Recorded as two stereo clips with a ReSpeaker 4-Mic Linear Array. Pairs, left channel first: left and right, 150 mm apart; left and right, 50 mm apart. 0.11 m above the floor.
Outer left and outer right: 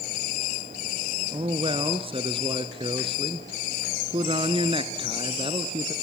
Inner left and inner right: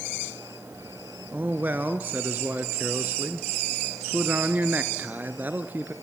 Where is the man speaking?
35° right (ahead or behind), 1.4 m.